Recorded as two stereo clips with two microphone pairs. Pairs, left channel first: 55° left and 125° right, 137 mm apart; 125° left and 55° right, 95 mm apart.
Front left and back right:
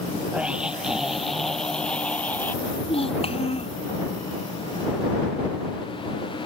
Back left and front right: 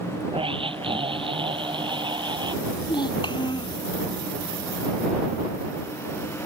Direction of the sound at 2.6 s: 95° left.